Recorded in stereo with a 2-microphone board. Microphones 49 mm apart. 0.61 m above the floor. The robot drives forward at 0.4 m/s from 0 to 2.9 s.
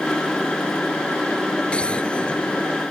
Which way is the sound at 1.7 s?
25° left (ahead or behind).